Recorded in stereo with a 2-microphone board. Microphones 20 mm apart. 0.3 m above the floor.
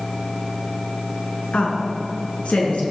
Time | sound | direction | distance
1.5 | a woman speaking | 70° left (ahead or behind) | 4 m